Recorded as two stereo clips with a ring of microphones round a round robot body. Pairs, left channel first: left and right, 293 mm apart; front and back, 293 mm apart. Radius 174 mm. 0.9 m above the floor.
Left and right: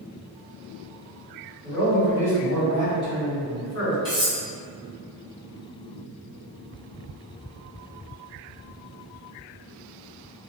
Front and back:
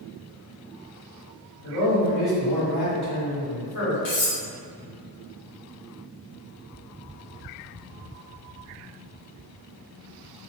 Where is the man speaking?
20° left, 1.9 m.